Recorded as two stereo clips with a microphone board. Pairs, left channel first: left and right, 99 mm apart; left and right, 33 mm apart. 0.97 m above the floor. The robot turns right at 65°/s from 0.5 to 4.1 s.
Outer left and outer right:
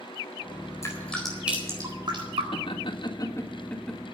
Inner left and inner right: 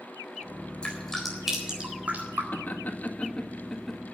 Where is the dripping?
30° left (ahead or behind), 4 m; by 2.4 s 70° right (ahead or behind), 4 m.